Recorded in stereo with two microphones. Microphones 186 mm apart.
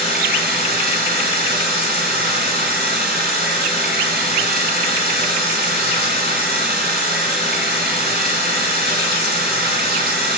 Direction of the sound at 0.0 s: 65° right (ahead or behind).